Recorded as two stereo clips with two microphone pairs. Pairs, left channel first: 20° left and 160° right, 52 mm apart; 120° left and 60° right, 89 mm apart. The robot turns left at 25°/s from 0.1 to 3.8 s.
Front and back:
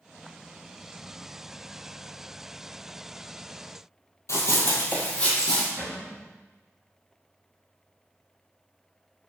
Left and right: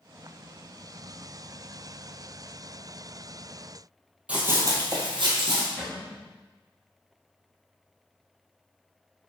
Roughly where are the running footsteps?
Ahead.